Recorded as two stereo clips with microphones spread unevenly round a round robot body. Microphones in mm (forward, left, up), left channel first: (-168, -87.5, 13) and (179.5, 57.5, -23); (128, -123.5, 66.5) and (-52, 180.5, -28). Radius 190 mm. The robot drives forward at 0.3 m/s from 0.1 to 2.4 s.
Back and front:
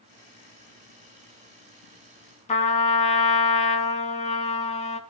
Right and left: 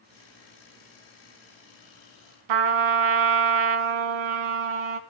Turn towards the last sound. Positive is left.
turn(degrees=130)